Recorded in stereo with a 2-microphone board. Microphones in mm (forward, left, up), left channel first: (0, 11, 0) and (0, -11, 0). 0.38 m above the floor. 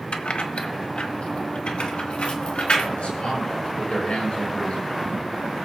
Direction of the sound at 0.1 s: 60° left (ahead or behind).